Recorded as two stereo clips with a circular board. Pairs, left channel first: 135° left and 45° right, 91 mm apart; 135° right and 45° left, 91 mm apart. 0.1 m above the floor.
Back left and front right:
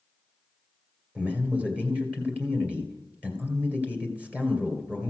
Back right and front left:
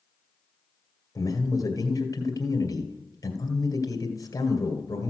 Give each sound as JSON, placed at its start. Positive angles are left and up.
{"t": 1.1, "sound": "a man speaking", "azimuth_deg": -115, "distance_m": 2.0}